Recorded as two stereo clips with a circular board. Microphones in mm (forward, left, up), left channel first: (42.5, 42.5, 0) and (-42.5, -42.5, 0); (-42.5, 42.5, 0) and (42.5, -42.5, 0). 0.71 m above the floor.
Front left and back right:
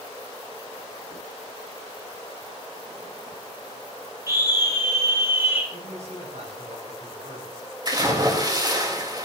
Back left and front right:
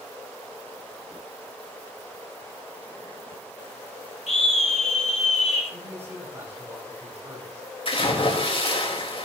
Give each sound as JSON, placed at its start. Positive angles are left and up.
{"t": 4.3, "sound": "a scream", "azimuth_deg": 160, "distance_m": 9.5}
{"t": 5.7, "sound": "a man speaking", "azimuth_deg": -115, "distance_m": 7.5}
{"t": 7.8, "sound": "a splash", "azimuth_deg": 175, "distance_m": 3.5}